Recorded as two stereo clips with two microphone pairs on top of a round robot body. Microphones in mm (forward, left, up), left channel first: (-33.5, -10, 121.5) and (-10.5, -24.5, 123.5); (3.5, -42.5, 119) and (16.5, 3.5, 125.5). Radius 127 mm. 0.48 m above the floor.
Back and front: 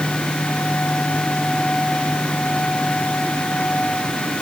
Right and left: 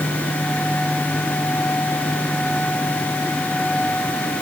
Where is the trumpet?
No trumpet in this recording.